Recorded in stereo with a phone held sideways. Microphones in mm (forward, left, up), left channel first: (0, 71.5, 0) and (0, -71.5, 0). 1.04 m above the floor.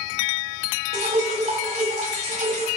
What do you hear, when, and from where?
0.9 s dripping: 50° right (ahead or behind), 4 m